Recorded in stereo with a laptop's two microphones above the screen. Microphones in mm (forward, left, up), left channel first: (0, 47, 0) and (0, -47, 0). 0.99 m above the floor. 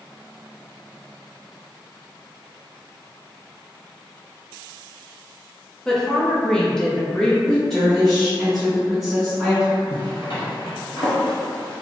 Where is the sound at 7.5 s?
5° left (ahead or behind), 1.5 m.